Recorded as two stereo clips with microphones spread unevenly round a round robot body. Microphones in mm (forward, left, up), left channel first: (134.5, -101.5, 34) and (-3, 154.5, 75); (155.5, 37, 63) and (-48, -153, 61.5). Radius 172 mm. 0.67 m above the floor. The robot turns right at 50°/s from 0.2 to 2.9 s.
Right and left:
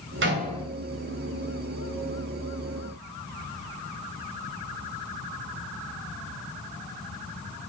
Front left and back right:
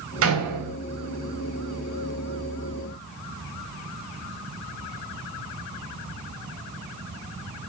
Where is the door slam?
175° left, 3.5 m; by 0.8 s 155° right, 3.5 m.